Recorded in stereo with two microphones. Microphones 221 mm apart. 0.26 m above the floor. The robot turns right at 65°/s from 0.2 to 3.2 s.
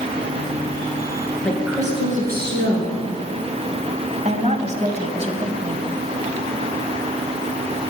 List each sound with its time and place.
1.4 s a woman speaking: 175° left, 4 m; by 3.0 s 85° right, 4 m
4.2 s a woman speaking: 35° right (ahead or behind), 1.5 m